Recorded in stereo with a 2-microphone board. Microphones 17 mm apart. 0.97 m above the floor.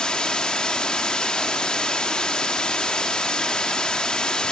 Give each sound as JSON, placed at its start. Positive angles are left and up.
{"t": 0.0, "sound": "running water", "side_deg": 65, "distance_m": 1.5}